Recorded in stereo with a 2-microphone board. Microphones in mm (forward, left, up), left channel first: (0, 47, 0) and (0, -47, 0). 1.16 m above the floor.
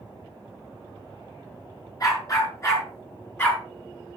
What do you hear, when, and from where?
2.0 s a dog barking: 40° left (ahead or behind), 6 m; by 3.6 s 25° left (ahead or behind), 5.5 m